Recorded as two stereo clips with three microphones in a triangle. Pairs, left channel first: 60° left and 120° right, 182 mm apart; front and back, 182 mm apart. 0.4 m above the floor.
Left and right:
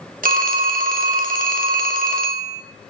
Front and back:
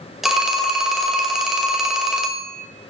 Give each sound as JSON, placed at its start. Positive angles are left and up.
{"t": 0.2, "sound": "a phone ringing", "azimuth_deg": -90, "distance_m": 0.6}